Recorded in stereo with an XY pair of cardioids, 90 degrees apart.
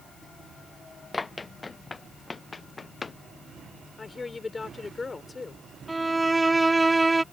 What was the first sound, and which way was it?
Running footsteps, 30° left.